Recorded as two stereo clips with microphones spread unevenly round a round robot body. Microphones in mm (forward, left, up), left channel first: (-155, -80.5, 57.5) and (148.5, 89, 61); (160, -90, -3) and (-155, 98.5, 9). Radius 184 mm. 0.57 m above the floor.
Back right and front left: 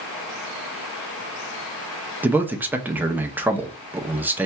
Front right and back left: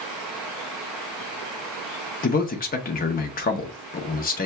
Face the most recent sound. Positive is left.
turn(degrees=-50)